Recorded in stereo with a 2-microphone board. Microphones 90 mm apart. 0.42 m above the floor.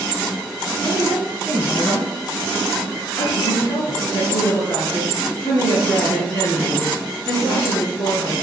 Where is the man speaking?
20° left (ahead or behind), 3.5 m.